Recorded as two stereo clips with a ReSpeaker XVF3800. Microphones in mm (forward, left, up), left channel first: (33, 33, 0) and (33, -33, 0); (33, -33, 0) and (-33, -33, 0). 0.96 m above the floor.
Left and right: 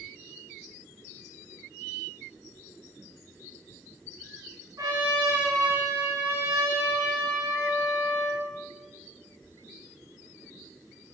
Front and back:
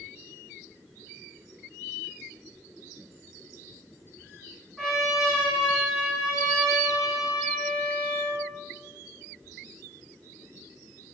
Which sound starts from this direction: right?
A trumpet, at 4.8 s.